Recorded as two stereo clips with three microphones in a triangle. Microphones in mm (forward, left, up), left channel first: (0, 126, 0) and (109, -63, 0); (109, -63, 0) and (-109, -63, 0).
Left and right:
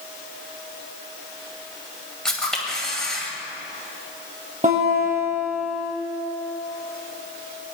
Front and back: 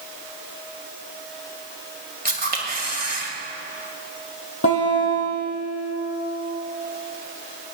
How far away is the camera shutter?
About 2.0 m.